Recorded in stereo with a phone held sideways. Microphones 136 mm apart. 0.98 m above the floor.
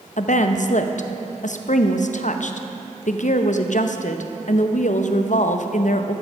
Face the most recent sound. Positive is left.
turn(degrees=65)  # may be behind; listen again after turning